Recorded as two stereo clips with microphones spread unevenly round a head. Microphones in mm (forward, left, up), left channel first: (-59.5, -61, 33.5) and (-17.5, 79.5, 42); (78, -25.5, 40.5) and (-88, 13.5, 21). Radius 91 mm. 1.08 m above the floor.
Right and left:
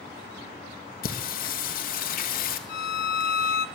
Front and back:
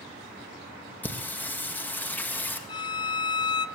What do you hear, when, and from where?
1.0 s singing: 95° right, 1.7 m
2.7 s a violin: 70° right, 0.6 m